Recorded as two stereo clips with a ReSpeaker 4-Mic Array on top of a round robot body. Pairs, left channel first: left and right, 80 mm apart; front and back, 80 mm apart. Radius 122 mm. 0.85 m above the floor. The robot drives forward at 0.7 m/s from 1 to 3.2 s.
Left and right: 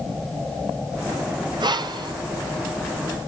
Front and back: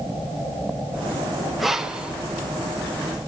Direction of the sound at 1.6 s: 90° right.